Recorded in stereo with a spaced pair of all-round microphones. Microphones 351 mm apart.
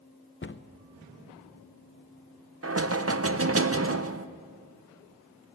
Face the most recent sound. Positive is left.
turn(degrees=-40)  # may be behind; listen again after turning